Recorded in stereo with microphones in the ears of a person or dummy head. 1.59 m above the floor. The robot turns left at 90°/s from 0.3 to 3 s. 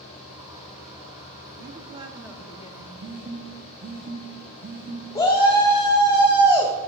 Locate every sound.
1.6 s a woman speaking: 115° right, 0.6 m; by 2.9 s 125° left, 0.6 m
3.0 s a phone buzzing: 40° right (ahead or behind), 0.7 m
5.2 s a shout: 20° left (ahead or behind), 0.7 m